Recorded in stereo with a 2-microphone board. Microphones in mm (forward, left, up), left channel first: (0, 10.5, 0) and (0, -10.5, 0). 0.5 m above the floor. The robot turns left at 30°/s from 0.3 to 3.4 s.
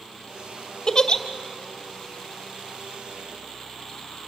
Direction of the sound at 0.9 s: 25° left (ahead or behind).